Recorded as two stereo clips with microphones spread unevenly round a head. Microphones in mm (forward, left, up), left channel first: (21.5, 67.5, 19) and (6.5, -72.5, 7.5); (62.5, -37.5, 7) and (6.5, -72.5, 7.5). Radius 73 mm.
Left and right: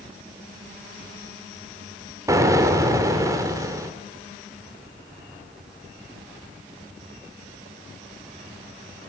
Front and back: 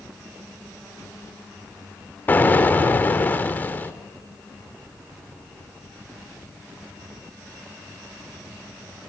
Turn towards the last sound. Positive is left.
turn(degrees=-30)